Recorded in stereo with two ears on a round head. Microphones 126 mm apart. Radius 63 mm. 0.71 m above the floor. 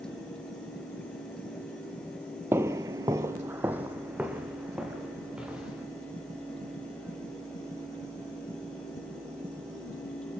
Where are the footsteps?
15° right (ahead or behind), 1.0 m; by 5.8 s 5° right (ahead or behind), 4.5 m.